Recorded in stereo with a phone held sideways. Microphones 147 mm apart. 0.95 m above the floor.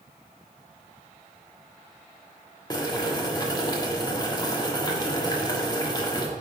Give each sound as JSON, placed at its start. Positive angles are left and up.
{"t": 2.7, "sound": "boiling", "side_deg": 25, "distance_m": 1.2}